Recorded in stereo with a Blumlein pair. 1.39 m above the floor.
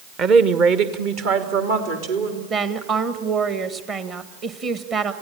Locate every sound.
0.2 s a woman speaking: 30° right, 1.1 m; by 2.4 s 50° right, 3.5 m
2.5 s a woman speaking: 25° right, 1.6 m